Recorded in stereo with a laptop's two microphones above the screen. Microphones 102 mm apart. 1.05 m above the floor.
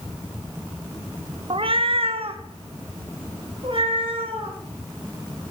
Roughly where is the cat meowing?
Right.